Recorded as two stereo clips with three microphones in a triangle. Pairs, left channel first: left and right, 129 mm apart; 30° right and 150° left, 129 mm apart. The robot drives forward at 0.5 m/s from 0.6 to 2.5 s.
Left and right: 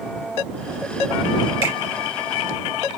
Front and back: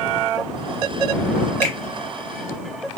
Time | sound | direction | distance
1.6 | a finger snap | 45° left | 3 m